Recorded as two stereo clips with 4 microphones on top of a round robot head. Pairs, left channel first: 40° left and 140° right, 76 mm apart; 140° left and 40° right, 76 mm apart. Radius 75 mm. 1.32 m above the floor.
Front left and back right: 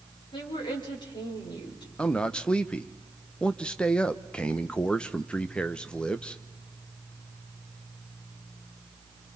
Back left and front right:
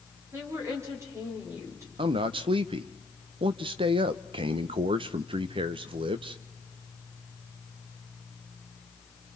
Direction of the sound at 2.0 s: 40° right.